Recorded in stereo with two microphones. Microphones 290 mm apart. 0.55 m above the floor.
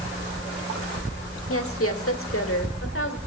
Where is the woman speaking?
55° left (ahead or behind), 1.4 m; by 3.2 s 50° left (ahead or behind), 1.9 m.